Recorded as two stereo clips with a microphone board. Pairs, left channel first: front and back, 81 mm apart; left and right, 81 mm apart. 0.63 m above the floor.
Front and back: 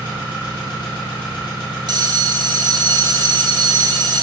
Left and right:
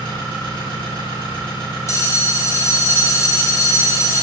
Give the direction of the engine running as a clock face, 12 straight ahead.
8 o'clock.